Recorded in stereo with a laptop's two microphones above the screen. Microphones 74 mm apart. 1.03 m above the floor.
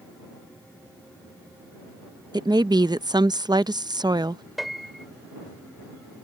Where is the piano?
Centre (ahead or behind).